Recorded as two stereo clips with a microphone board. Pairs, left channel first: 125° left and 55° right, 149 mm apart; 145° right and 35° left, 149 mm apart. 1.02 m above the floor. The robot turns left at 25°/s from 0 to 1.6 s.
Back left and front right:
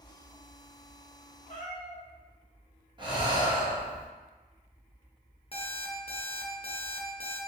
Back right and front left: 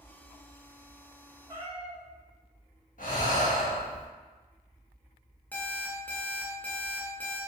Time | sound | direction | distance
1.5 | a cat meowing | 90° left | 0.8 m
3.0 | breathing | 115° right | 0.7 m
5.5 | an alarm clock | 140° left | 0.5 m